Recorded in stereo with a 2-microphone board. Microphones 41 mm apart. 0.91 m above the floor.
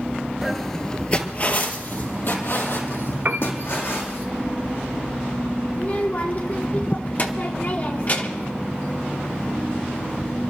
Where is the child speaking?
40° left (ahead or behind), 1.2 m.